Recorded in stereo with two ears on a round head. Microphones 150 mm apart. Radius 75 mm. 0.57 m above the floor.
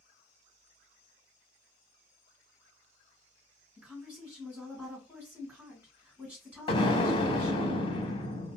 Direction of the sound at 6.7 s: 30° left (ahead or behind).